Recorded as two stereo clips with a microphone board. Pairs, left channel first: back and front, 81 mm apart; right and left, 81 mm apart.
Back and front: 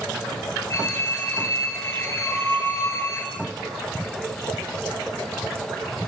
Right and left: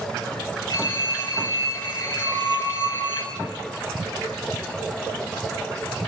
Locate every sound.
0.7 s a phone ringing: 125° right, 4 m
2.2 s a flute: 90° left, 7.5 m